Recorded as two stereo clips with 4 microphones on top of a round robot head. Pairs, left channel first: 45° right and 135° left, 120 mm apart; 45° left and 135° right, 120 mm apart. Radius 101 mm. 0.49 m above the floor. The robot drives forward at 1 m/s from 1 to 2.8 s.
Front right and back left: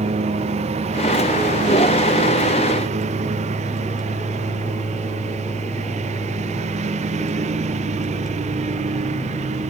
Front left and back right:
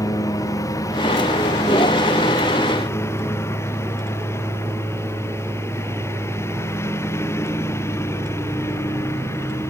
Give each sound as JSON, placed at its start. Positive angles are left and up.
{"t": 0.0, "sound": "a lawn mower", "azimuth_deg": 105}